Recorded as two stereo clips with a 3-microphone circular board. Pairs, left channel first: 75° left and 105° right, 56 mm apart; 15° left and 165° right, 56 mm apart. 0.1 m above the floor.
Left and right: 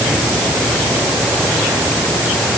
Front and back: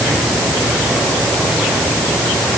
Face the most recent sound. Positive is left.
No sound to turn to.